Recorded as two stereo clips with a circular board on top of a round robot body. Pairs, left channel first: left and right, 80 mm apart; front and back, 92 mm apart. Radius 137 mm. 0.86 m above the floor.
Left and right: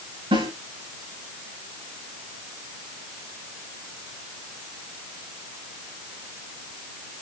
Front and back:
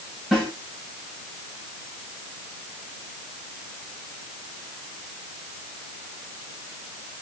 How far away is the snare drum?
About 8 m.